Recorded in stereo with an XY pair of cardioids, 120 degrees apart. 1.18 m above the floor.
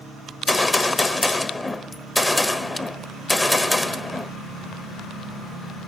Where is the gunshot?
15° left, 1.3 m.